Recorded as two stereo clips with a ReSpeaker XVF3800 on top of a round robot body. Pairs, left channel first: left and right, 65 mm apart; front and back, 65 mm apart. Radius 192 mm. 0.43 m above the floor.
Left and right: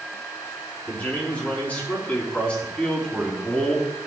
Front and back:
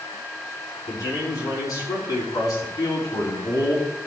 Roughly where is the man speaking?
Ahead left.